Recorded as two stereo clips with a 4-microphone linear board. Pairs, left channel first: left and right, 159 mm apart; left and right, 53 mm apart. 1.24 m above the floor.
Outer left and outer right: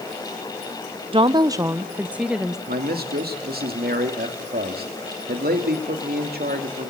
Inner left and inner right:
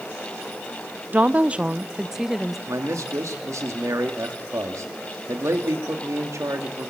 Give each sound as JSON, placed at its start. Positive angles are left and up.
{"t": 1.1, "sound": "a woman speaking", "side_deg": -35, "distance_m": 0.6}
{"t": 2.7, "sound": "a man speaking", "side_deg": -75, "distance_m": 2.5}